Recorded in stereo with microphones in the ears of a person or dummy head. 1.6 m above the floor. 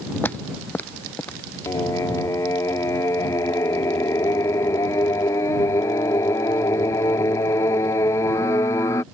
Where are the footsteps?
10° left (ahead or behind).